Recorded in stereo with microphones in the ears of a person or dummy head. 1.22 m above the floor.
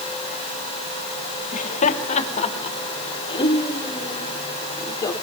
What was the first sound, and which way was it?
Laughter, 40° left (ahead or behind).